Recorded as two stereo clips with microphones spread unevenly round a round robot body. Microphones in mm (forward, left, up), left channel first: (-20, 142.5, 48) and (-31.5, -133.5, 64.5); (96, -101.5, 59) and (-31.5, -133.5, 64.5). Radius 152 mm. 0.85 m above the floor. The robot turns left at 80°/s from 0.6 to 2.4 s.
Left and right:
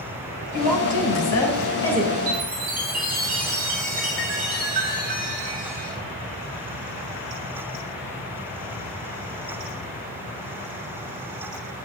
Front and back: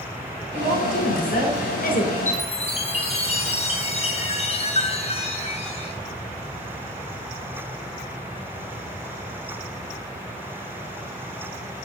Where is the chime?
15° right, 6 m; by 6.0 s 25° right, 6 m.